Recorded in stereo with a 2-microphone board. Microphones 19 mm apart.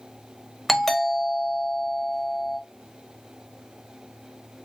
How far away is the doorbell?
About 1.1 m.